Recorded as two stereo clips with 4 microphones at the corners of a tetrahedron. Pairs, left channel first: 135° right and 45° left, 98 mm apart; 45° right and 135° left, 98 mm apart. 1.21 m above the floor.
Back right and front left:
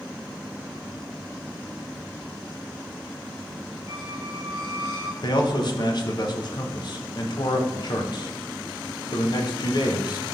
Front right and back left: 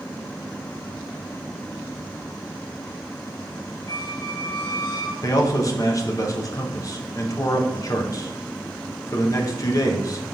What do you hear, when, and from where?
3.9 s a squeak: 10° right, 1.9 m
5.2 s a man speaking: 95° right, 0.9 m